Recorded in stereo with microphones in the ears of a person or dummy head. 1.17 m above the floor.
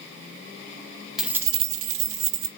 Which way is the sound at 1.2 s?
Centre (ahead or behind).